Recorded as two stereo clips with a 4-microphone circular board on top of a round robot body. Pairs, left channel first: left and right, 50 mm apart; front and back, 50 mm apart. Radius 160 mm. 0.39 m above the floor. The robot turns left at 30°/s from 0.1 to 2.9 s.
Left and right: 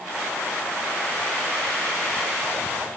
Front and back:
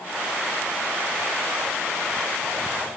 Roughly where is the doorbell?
No doorbell in this recording.